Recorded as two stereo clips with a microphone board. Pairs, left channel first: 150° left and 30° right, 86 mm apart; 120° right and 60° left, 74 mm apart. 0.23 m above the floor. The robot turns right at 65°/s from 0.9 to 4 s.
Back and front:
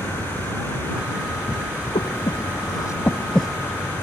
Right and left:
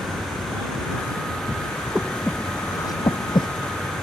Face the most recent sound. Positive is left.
turn(degrees=-85)